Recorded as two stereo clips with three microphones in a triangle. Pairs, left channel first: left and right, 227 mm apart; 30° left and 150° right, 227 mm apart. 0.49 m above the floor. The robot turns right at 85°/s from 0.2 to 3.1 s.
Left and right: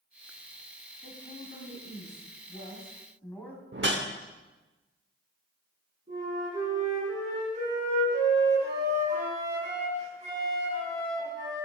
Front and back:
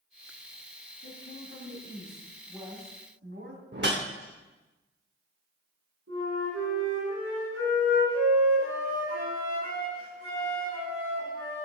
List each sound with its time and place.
1.0 s a woman speaking: 5° right, 2.5 m; by 3.6 s 175° left, 2.5 m
3.7 s a whoosh: 120° right, 0.9 m
6.1 s a flute: 150° right, 5.5 m